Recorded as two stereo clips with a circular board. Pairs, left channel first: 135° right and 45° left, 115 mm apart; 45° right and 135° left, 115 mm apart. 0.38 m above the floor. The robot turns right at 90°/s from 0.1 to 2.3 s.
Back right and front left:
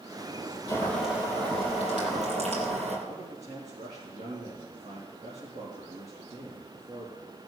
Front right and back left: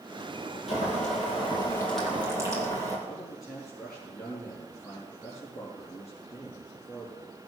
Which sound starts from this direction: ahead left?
A man speaking, at 3.1 s.